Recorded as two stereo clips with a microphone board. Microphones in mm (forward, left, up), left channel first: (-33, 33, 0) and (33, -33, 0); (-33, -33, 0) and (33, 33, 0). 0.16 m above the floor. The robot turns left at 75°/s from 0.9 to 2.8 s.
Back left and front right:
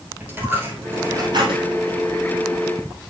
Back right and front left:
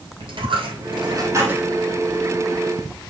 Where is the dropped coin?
20° left, 3 m; by 1.8 s 40° right, 3 m.